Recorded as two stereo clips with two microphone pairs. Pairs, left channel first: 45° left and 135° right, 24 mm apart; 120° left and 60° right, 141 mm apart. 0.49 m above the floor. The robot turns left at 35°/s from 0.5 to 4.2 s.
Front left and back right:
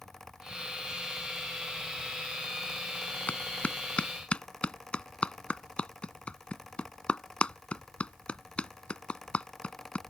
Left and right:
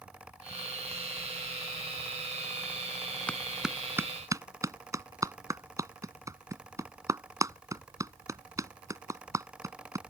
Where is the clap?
40° left; by 10.0 s 5° left.